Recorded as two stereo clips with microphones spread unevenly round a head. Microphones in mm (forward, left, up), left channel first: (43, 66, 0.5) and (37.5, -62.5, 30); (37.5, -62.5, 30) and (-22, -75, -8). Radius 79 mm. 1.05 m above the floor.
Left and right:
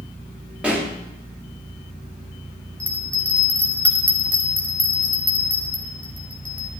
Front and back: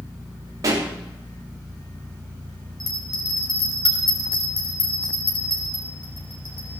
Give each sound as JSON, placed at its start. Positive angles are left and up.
{"t": 0.6, "sound": "a pop", "azimuth_deg": 180, "distance_m": 3.0}
{"t": 2.8, "sound": "a bell", "azimuth_deg": 10, "distance_m": 3.5}